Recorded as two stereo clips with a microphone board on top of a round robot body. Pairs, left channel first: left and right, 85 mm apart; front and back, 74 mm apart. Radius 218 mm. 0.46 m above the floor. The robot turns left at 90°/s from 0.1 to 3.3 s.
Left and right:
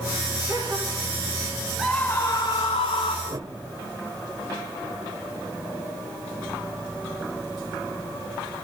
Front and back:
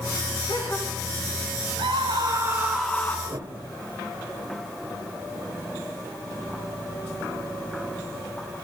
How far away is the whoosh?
About 1.7 m.